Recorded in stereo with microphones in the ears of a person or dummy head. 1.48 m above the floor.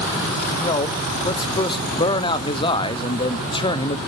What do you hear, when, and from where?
0.6 s a man speaking: 30° left (ahead or behind), 0.7 m